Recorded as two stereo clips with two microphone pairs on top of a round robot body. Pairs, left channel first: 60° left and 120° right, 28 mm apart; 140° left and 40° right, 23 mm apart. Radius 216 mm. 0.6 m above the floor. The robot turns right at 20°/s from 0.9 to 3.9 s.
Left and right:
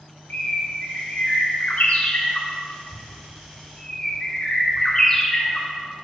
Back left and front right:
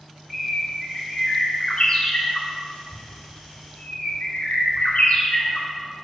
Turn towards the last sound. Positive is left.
turn(degrees=125)